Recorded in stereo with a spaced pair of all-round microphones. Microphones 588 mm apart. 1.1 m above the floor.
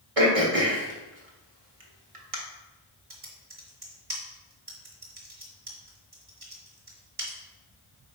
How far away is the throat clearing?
About 1.3 m.